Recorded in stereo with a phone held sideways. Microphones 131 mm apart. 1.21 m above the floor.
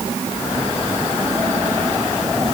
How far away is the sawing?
No sawing in this recording.